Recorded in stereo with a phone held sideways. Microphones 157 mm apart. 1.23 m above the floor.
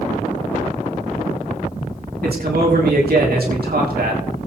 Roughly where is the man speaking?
Right.